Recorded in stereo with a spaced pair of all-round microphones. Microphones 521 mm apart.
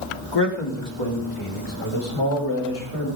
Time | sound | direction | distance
0.3 | a man speaking | 50° left (ahead or behind) | 2.5 m